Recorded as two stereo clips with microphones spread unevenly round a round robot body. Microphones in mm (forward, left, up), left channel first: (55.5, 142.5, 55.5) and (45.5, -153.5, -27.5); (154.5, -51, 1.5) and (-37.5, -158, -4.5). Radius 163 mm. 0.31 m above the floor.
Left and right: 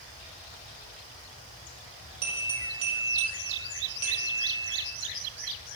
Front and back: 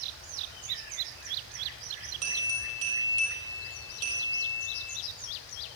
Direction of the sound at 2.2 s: 150° right.